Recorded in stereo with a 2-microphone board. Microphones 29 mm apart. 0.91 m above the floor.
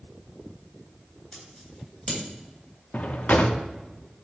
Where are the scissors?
30° left (ahead or behind), 2.5 m.